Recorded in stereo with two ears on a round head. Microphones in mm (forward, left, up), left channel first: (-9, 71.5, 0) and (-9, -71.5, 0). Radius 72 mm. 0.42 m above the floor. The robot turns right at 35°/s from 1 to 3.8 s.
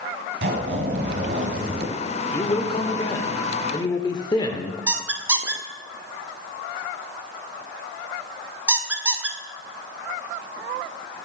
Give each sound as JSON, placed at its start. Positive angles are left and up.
{"t": 0.4, "sound": "a zipper", "azimuth_deg": -85, "distance_m": 2.0}
{"t": 2.3, "sound": "a man speaking", "side_deg": 20, "distance_m": 0.8}
{"t": 4.9, "sound": "a squeak", "side_deg": -10, "distance_m": 0.7}